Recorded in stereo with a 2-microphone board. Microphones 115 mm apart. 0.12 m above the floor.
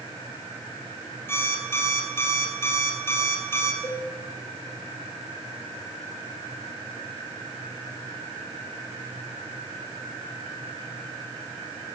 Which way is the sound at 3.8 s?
40° left (ahead or behind).